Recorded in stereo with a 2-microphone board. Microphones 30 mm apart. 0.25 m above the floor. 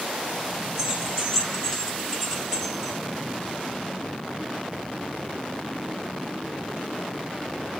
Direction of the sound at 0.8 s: 15° right (ahead or behind).